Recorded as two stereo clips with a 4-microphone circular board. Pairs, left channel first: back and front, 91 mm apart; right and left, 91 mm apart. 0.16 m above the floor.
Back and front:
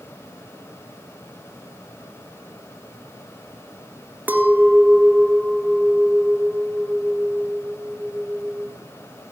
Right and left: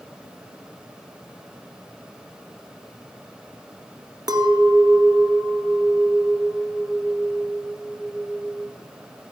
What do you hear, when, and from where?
4.3 s a clink: 65° left, 1.2 m